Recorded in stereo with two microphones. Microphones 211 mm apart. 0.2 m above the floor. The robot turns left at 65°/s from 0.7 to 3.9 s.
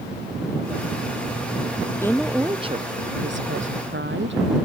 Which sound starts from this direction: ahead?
A woman speaking, at 2.0 s.